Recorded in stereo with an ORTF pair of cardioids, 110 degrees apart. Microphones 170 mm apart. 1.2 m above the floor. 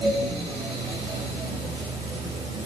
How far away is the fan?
About 6 m.